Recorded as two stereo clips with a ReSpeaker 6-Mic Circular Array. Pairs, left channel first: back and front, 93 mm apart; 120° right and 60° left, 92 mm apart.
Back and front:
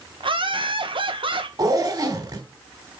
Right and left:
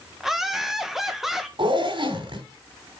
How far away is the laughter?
About 1.5 m.